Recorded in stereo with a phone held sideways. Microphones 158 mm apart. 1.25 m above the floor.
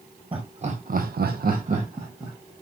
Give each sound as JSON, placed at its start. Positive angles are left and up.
{"t": 0.3, "sound": "laughter", "side_deg": -35, "distance_m": 0.9}